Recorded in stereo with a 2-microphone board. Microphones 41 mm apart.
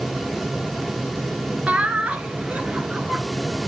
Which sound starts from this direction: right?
Laughter, at 1.7 s.